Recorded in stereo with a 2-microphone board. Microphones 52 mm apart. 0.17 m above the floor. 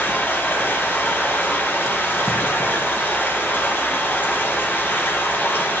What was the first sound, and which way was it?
Running water, 35° left (ahead or behind).